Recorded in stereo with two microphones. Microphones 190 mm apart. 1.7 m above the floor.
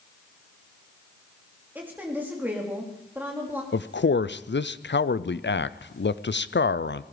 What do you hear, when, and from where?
1.8 s a woman speaking: 10° right (ahead or behind), 3.5 m
3.7 s a man speaking: 85° left, 0.5 m